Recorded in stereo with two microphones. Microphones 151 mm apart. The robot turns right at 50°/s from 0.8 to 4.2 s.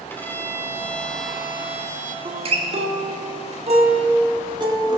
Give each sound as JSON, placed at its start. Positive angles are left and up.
{"t": 0.1, "sound": "a violin", "azimuth_deg": 155, "distance_m": 1.6}
{"t": 2.2, "sound": "a guitar", "azimuth_deg": -135, "distance_m": 1.6}